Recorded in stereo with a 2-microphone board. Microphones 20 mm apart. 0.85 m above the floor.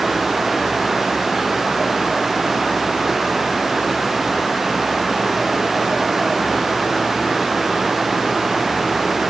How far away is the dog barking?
I don't hear a dog barking.